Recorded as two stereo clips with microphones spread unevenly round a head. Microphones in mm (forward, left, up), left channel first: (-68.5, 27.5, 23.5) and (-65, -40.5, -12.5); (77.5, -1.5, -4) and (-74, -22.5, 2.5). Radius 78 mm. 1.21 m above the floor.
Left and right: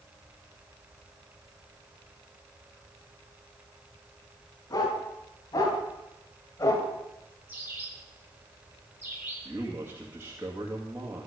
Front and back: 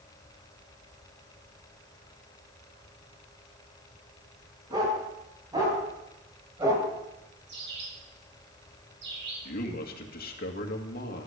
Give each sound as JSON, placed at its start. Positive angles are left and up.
{"t": 4.7, "sound": "a dog barking", "azimuth_deg": 120, "distance_m": 5.5}
{"t": 7.5, "sound": "a bird", "azimuth_deg": -155, "distance_m": 7.0}
{"t": 9.4, "sound": "a man speaking", "azimuth_deg": -25, "distance_m": 2.0}